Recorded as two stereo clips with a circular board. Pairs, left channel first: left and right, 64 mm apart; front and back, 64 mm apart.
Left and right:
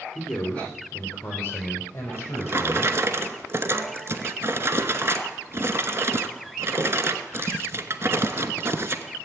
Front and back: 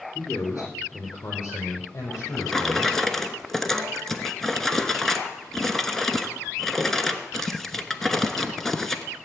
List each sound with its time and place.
0.1 s a man speaking: 25° left, 4.5 m; by 3.0 s 45° left, 4.5 m
2.1 s a drawer: 80° right, 1.0 m